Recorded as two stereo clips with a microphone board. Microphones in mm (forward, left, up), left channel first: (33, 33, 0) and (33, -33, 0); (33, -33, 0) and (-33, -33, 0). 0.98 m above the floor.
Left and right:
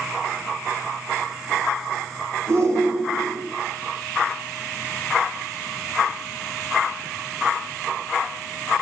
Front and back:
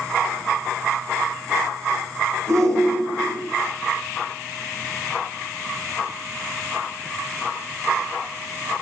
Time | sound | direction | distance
2.5 | a shout | 135° right | 3.5 m